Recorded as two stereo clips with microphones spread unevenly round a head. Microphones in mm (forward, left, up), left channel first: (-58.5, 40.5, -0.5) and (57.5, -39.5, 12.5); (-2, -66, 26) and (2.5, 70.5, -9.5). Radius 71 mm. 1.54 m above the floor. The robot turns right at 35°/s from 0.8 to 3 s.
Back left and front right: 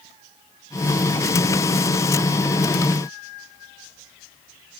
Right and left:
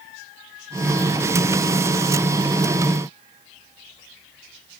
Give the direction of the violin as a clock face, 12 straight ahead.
No violin in this recording.